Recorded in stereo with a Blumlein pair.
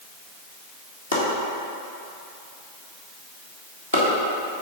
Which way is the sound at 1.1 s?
65° left.